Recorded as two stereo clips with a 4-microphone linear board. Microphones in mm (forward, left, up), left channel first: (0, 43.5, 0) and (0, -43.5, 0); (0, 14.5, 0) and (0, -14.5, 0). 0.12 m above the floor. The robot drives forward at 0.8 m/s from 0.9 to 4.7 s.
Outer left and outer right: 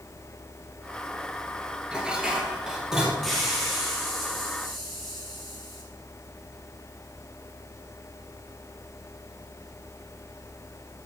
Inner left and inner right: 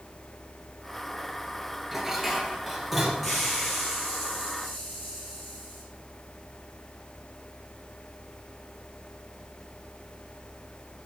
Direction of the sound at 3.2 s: Centre (ahead or behind).